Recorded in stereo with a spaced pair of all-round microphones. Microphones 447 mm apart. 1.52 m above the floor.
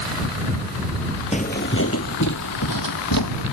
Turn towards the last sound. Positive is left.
turn(degrees=55)  # may be behind; listen again after turning